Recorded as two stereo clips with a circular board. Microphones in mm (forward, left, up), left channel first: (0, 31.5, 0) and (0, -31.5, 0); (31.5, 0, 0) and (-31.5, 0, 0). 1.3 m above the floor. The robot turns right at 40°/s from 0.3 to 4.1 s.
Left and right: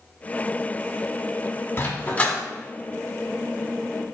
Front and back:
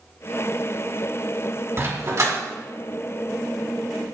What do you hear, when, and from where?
1.8 s a dog barking: 140° left, 1.6 m; by 2.4 s 165° left, 1.6 m